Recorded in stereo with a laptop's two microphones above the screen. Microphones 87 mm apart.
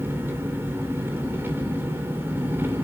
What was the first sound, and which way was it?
An engine running, 25° right (ahead or behind).